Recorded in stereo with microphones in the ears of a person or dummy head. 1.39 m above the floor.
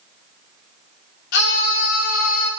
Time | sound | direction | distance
1.3 | a scream | 60° left (ahead or behind) | 4.5 m